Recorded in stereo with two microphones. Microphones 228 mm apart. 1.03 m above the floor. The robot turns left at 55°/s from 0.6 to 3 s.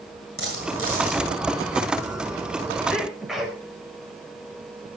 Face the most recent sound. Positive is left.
turn(degrees=0)  # may be behind; listen again after turning